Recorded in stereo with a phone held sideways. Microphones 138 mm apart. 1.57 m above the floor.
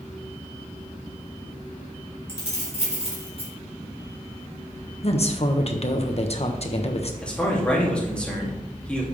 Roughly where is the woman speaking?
Left.